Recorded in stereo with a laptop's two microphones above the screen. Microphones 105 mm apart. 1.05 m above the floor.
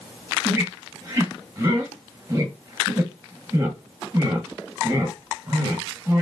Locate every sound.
0.5 s a squeak: 25° right (ahead or behind), 1.2 m